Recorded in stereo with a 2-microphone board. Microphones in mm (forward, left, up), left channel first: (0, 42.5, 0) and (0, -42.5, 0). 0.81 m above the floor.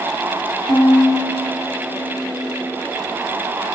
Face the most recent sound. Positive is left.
turn(degrees=45)  # may be behind; listen again after turning